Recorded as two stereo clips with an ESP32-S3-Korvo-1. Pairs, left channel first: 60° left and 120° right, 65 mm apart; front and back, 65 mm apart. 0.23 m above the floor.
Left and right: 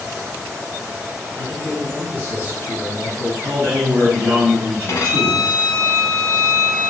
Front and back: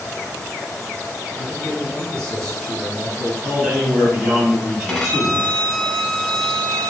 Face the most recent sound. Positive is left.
turn(degrees=75)